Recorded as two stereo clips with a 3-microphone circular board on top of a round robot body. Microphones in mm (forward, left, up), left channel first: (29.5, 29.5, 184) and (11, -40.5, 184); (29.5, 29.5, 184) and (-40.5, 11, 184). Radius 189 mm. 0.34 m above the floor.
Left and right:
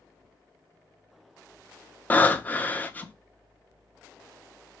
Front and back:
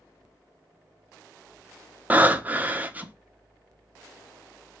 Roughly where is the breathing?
Behind left.